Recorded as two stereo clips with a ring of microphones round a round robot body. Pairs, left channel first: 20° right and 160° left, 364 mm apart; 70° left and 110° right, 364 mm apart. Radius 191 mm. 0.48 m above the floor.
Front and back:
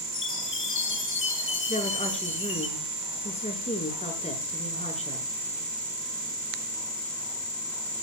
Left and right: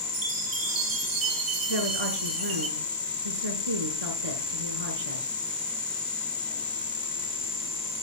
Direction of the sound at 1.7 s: 95° right.